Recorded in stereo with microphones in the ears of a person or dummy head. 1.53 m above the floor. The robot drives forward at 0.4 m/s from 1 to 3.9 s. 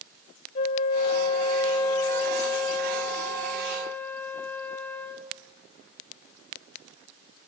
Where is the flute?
25° left (ahead or behind), 0.6 m; by 5.3 s 10° left (ahead or behind), 1.5 m.